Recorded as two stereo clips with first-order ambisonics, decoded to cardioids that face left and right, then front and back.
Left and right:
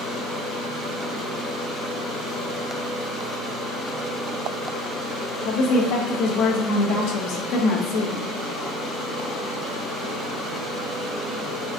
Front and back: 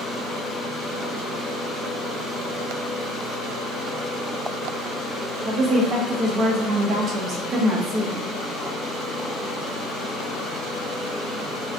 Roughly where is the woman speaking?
Behind left.